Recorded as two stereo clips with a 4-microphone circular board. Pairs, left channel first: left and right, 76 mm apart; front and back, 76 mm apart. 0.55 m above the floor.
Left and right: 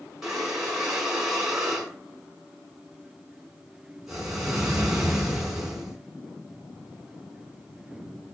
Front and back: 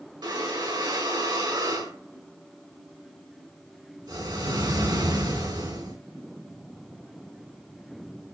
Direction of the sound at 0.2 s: 175° right.